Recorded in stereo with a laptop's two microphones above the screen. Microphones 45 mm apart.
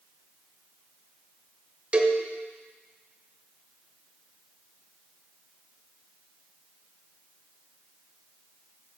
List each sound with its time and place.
1.9 s a cowbell: 30° right (ahead or behind), 1.1 m